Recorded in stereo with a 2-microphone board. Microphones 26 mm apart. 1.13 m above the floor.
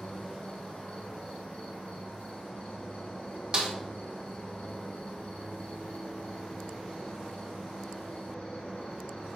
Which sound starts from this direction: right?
A snare drum, at 3.5 s.